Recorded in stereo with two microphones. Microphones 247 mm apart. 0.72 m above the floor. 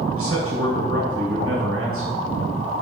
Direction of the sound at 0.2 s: 60° right (ahead or behind).